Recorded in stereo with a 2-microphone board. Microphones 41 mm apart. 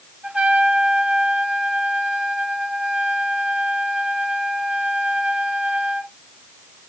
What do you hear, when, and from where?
0.2 s a trumpet: 30° right (ahead or behind), 2 m